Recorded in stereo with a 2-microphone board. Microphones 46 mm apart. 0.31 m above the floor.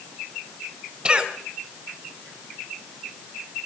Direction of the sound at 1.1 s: 20° right (ahead or behind).